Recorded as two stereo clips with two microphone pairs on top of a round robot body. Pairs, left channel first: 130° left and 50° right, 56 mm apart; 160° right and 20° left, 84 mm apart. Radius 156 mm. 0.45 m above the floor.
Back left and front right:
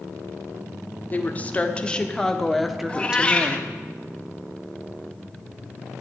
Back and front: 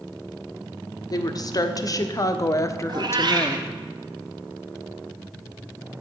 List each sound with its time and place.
1.1 s a woman speaking: straight behind, 1.8 m; by 3.6 s 110° right, 1.3 m
2.9 s a cat meowing: 60° left, 1.2 m